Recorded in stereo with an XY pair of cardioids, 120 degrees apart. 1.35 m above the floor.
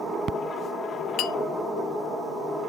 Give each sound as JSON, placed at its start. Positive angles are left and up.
{"t": 1.2, "sound": "a clink", "azimuth_deg": 65, "distance_m": 0.6}